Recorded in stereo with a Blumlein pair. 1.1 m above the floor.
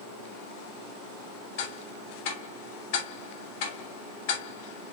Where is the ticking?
50° left, 3 m.